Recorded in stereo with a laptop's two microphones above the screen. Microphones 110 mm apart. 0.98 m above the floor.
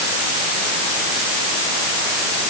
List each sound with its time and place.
Only background noise.